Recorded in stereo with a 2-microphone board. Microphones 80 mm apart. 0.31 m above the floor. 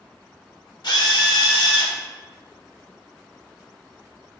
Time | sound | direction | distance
0.8 | a drill | 60° left (ahead or behind) | 0.6 m